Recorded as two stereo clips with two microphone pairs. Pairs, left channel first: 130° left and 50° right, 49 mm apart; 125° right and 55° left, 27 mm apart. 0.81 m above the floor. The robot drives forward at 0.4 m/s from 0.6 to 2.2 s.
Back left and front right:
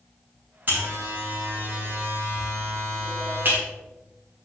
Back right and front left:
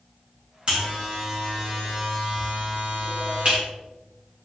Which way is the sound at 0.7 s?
5° right.